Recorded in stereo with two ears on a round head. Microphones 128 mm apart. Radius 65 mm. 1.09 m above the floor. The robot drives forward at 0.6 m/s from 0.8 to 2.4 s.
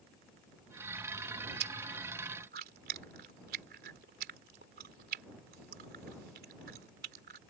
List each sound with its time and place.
1.6 s chewing: 80° right; by 7.4 s 75° right (ahead or behind)